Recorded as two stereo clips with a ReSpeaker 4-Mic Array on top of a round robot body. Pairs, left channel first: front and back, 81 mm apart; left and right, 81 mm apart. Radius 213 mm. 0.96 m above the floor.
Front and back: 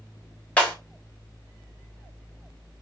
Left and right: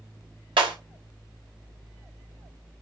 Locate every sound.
0.6 s breaking glass: 75° right, 5 m